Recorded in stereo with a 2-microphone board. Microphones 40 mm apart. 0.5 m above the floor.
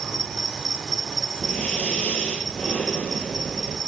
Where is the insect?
Centre (ahead or behind), 1.8 m.